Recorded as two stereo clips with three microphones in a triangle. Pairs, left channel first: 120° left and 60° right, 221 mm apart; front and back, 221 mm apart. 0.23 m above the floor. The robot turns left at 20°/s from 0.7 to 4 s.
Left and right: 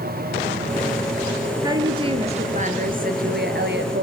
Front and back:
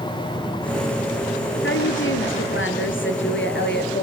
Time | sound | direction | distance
1.6 | a woman speaking | 10° left | 4 m